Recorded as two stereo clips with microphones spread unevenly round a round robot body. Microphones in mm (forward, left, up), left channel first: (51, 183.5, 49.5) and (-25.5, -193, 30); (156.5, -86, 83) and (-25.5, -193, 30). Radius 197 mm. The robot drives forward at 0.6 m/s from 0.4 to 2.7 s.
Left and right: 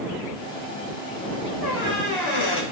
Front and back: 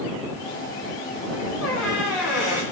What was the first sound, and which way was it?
A squeak, 40° left.